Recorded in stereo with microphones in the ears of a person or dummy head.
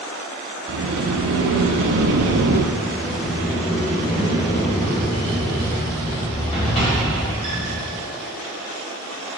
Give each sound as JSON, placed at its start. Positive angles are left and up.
{"t": 0.7, "sound": "a sliding door", "side_deg": -65, "distance_m": 1.4}
{"t": 2.8, "sound": "a sliding door", "side_deg": 30, "distance_m": 3.0}